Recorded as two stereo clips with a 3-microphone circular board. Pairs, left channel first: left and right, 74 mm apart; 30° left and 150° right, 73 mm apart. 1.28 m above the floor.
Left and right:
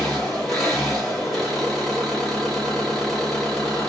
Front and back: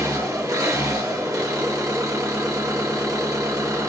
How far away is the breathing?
I don't hear breathing.